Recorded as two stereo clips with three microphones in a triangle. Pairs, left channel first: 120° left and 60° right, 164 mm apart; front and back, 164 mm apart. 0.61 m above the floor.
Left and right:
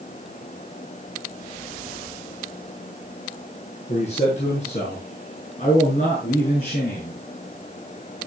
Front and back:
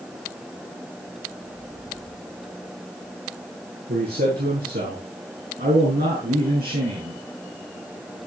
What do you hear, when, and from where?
3.9 s a man speaking: 165° left, 7.5 m; by 7.2 s 155° left, 6.5 m